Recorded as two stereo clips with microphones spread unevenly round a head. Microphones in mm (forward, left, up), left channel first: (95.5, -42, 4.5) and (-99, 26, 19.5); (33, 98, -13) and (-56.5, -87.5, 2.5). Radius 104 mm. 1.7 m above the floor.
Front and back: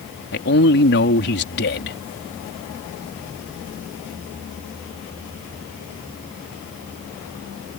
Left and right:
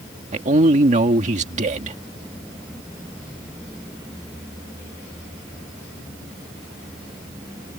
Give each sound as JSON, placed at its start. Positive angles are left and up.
{"t": 0.3, "sound": "a man speaking", "azimuth_deg": -60}